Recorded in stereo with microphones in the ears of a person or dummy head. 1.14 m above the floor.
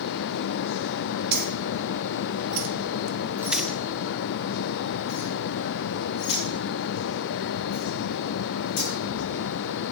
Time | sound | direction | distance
1.3 | keys jangling | 55° right (ahead or behind) | 1.7 m